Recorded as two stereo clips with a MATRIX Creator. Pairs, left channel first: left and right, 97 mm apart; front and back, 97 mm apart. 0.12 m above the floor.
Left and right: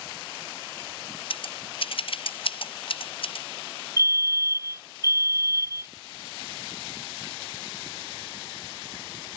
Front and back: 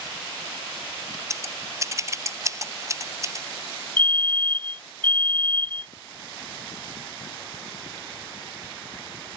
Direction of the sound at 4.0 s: 60° right.